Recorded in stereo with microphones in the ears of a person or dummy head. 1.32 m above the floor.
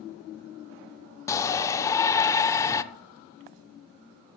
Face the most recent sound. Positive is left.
turn(degrees=10)  # may be behind; listen again after turning